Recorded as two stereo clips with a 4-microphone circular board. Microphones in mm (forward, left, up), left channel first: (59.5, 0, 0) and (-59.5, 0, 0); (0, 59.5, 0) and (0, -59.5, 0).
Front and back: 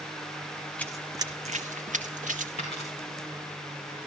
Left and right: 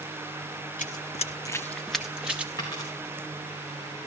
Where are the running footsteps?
80° left, 0.6 m; by 2.5 s 170° right, 1.4 m.